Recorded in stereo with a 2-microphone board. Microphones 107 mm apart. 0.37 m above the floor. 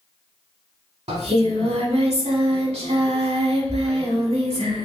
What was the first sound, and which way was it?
Singing, 75° right (ahead or behind).